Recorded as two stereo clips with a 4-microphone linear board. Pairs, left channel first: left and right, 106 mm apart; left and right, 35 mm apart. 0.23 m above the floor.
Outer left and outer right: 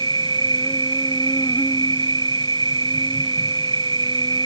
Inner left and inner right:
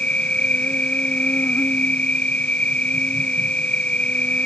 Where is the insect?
40° left (ahead or behind).